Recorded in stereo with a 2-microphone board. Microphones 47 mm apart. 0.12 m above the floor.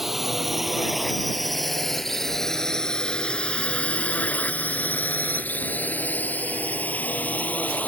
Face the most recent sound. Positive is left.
turn(degrees=35)  # may be behind; listen again after turning